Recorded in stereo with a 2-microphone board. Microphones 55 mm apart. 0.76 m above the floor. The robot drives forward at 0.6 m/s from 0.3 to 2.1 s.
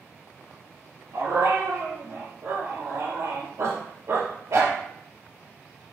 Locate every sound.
1.1 s a dog barking: 70° right (ahead or behind), 4.5 m; by 4.8 s 75° right (ahead or behind), 4 m